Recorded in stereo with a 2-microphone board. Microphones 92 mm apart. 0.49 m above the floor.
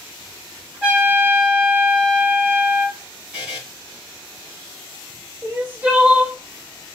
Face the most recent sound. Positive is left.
turn(degrees=-15)  # may be behind; listen again after turning